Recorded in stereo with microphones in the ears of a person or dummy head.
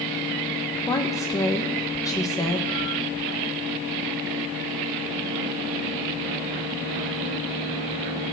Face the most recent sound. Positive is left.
turn(degrees=15)  # may be behind; listen again after turning